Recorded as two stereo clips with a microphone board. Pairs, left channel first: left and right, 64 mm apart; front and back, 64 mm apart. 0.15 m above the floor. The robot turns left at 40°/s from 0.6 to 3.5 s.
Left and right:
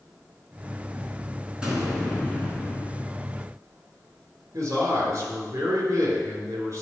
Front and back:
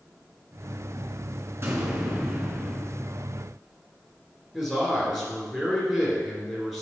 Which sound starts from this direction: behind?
An explosion, at 1.6 s.